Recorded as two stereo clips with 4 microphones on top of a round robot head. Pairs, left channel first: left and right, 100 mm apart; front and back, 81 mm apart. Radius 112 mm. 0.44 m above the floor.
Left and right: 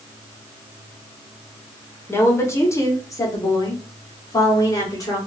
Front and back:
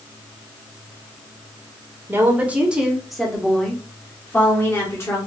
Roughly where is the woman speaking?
Behind left.